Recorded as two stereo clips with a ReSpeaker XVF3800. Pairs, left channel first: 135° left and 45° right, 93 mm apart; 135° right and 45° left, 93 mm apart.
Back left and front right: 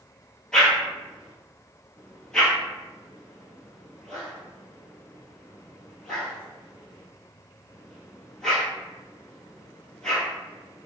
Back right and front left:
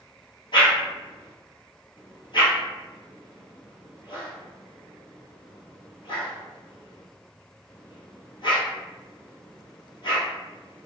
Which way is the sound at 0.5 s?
140° right.